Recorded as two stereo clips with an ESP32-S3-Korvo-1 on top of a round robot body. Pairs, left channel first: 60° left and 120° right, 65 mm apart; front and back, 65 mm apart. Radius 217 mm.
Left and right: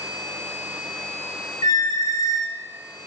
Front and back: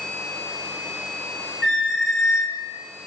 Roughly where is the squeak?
Left.